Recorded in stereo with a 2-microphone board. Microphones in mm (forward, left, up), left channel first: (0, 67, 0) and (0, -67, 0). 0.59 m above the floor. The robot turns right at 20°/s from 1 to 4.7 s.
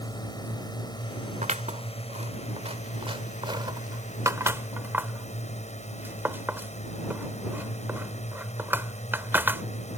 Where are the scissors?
65° right (ahead or behind); by 9.6 s 15° right (ahead or behind).